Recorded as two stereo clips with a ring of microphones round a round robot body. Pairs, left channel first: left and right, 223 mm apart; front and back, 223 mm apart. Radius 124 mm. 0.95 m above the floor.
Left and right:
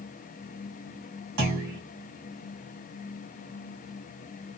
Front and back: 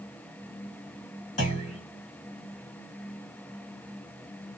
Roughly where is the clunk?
Ahead right.